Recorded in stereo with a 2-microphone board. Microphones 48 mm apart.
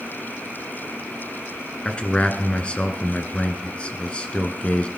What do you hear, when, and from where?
1.9 s a man speaking: 25° left (ahead or behind), 1.8 m